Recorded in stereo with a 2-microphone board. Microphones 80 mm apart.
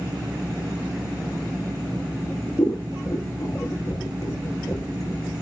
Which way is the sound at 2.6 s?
50° left (ahead or behind).